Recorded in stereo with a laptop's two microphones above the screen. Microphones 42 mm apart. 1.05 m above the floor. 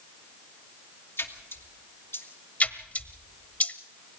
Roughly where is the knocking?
I don't hear knocking.